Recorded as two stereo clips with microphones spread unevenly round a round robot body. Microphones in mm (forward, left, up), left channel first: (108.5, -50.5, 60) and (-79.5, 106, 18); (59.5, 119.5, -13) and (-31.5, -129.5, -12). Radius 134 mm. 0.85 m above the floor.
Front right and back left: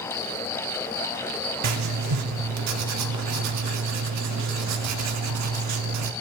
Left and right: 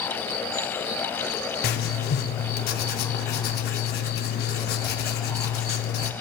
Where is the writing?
125° left, 0.7 m.